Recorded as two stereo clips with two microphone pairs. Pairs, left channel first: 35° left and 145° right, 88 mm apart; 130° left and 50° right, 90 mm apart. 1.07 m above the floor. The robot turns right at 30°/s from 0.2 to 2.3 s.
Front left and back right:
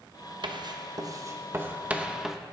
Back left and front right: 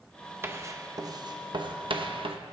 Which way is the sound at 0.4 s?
115° right.